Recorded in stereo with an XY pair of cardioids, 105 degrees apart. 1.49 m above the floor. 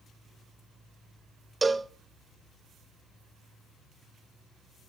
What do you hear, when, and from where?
1.6 s a cowbell: 20° right, 0.8 m